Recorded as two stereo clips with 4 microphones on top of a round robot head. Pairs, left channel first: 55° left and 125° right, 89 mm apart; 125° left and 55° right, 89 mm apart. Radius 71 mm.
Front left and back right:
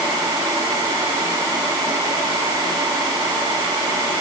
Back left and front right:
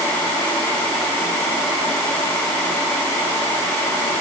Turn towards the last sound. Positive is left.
No sound to turn to.